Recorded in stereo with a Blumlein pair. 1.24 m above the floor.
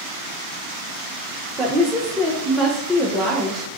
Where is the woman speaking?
5° right, 0.5 m.